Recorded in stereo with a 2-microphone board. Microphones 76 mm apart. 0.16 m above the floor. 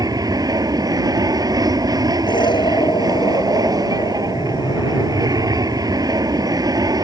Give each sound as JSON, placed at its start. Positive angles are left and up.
{"t": 0.0, "sound": "an aircraft", "side_deg": -50}
{"t": 2.3, "sound": "an explosion", "side_deg": 70}